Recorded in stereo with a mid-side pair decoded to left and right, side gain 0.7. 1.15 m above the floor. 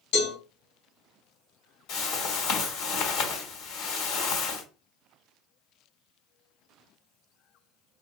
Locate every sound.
0.1 s a cowbell: 65° left, 2.5 m
1.9 s a whoosh: 65° left, 2 m